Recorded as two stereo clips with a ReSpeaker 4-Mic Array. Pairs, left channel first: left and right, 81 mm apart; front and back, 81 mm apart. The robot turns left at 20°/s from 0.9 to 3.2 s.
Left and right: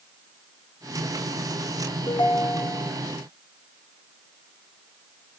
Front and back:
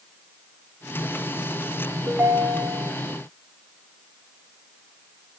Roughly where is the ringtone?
Behind left.